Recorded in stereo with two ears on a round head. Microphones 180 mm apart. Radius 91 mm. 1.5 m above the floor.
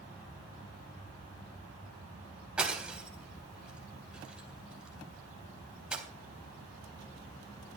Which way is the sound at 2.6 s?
5° right (ahead or behind).